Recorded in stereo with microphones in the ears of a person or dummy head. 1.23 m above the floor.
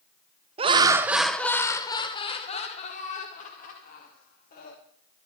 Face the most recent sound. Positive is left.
turn(degrees=50)  # may be behind; listen again after turning